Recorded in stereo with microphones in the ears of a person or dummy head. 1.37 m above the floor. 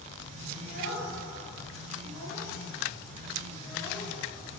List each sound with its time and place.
0.6 s a child speaking: 55° left (ahead or behind), 1.9 m; by 4.1 s 30° left (ahead or behind), 3.5 m